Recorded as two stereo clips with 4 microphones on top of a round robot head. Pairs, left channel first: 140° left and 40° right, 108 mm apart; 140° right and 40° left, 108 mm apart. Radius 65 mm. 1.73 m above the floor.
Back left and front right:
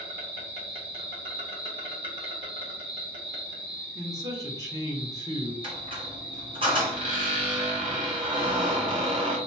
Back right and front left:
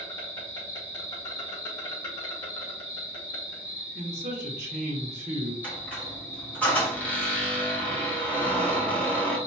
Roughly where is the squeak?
Ahead right.